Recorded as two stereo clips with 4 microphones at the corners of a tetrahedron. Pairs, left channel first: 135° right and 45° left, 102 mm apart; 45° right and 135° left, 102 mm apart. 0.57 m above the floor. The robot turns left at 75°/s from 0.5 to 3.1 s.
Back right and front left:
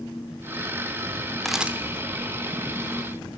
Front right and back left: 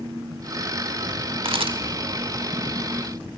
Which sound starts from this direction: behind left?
A camera shutter, at 1.4 s.